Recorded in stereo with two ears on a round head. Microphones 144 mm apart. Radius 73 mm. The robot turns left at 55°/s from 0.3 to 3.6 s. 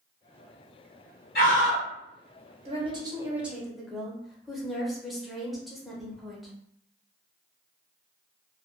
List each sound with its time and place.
1.4 s a scream: 55° left (ahead or behind), 1.4 m; by 1.9 s 30° left (ahead or behind), 1.4 m
2.6 s a woman speaking: 130° right, 0.7 m; by 6.5 s straight behind, 0.7 m